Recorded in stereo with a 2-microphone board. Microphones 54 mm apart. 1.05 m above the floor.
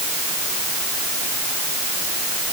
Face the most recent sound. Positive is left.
No sound to turn to.